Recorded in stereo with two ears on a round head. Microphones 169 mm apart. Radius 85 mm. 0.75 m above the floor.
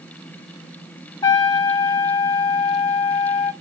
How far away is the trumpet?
About 0.7 m.